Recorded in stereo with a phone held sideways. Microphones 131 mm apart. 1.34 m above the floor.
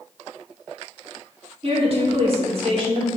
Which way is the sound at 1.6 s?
50° right (ahead or behind).